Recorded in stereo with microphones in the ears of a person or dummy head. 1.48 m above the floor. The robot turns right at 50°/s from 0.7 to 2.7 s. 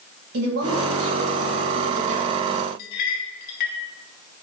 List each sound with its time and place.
0.3 s a woman speaking: 115° right, 1.7 m; by 2.7 s 15° right, 1.7 m
2.8 s a clink: 45° left (ahead or behind), 1.4 m